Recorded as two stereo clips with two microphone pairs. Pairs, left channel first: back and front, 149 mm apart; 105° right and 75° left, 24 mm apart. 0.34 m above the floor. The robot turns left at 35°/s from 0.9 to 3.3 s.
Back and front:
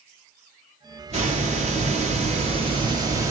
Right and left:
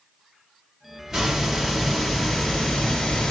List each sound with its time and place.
1.1 s a hiss: 15° left, 1.3 m; by 3.3 s 65° right, 1.3 m